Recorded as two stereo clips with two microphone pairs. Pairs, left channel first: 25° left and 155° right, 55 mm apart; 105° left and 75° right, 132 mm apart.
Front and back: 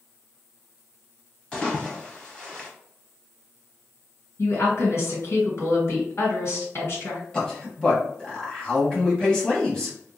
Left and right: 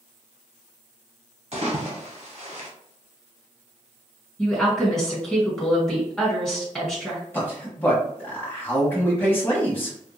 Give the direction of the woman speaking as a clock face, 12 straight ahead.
11 o'clock.